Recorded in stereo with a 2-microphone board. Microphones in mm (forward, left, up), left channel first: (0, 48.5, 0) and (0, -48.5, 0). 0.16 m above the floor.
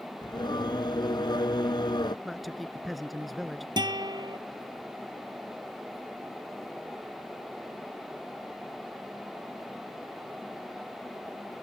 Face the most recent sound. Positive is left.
turn(degrees=-45)  # may be behind; listen again after turning